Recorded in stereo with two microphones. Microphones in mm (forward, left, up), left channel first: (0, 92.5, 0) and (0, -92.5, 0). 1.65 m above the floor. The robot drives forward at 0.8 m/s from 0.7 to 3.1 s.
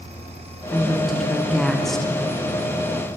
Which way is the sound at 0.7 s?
Centre (ahead or behind).